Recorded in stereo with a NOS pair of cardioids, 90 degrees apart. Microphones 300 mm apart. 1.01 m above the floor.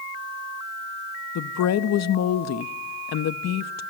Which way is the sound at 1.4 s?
60° left.